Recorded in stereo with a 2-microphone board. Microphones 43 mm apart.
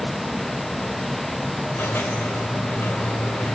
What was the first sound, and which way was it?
A squeak, 70° left (ahead or behind).